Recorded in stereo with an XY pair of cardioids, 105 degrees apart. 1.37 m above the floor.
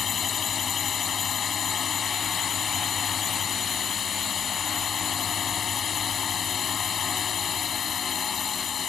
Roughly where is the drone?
Ahead left.